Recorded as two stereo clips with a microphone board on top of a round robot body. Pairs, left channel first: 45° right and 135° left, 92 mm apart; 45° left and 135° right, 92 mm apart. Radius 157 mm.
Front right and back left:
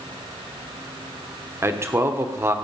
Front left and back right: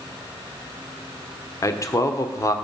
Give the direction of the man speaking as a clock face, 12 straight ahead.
9 o'clock.